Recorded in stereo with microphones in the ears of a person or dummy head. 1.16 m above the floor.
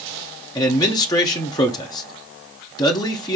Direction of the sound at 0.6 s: 20° left (ahead or behind).